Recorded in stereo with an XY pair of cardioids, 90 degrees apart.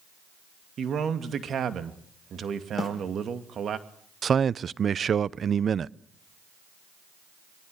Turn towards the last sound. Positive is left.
turn(degrees=-50)